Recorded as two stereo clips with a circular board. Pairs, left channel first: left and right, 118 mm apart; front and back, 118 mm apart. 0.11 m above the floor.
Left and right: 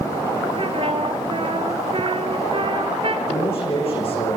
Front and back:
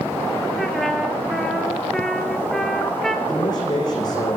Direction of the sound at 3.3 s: 55° left.